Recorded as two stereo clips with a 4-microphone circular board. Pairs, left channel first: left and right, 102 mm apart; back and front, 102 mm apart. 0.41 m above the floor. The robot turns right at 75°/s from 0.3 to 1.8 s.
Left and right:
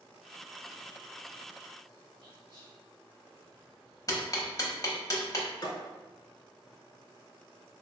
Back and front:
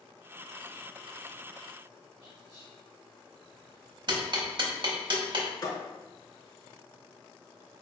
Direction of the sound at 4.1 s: 40° left.